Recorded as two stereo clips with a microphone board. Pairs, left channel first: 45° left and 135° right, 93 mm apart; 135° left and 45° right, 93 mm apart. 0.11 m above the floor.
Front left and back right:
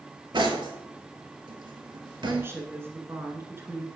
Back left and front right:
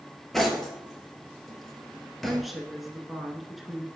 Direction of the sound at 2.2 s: 135° right.